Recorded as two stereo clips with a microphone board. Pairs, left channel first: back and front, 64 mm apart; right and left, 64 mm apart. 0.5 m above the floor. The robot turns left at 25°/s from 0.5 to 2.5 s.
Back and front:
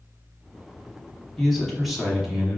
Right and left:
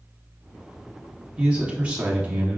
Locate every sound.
1.4 s a man speaking: 100° left, 1.0 m; by 2.6 s 75° left, 1.0 m